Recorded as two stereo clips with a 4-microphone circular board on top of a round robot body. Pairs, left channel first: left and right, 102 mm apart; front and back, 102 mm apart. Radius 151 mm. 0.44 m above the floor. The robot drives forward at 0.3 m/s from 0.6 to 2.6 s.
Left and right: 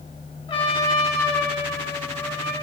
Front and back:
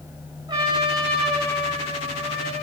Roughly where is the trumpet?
Behind left.